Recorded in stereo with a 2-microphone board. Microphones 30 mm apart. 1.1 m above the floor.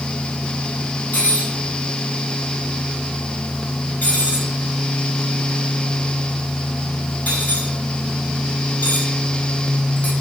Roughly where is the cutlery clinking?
Left.